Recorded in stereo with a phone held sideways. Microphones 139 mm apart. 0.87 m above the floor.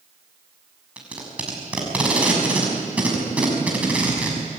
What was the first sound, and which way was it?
Tape being pulled, 10° right (ahead or behind).